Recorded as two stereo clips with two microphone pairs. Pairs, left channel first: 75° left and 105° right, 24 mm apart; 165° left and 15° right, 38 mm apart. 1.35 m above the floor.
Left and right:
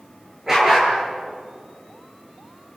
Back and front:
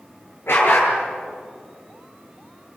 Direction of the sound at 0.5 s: Straight behind.